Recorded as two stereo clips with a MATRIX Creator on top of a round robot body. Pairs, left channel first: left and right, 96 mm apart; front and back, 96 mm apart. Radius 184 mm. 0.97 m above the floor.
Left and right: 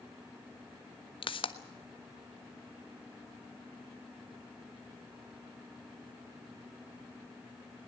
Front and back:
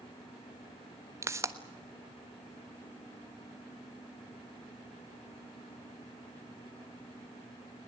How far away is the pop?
About 1.4 m.